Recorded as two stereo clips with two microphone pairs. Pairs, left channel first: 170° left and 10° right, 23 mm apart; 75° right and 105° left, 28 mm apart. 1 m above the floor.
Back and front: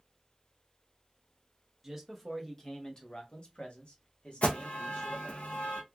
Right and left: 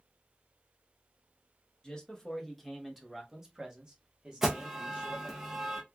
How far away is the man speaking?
About 0.8 m.